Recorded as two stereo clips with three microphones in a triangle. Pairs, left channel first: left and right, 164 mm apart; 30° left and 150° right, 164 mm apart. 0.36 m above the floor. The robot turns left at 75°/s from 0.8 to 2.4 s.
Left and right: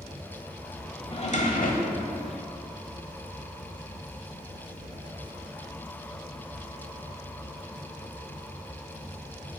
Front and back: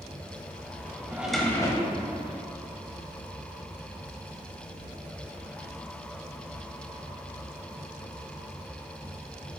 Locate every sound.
1.1 s a drawer: 135° left, 0.9 m; by 2.1 s 60° left, 0.9 m